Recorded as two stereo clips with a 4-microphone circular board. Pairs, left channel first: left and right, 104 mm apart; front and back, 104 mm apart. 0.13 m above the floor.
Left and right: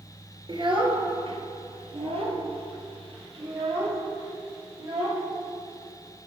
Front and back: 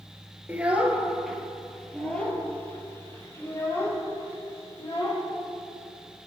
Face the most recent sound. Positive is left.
turn(degrees=-60)